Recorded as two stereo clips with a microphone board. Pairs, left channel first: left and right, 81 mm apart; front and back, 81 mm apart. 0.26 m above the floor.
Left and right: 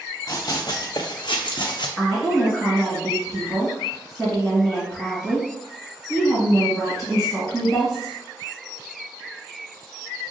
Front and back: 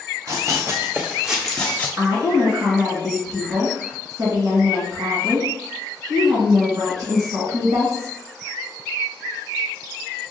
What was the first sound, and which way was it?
Running footsteps, 135° left.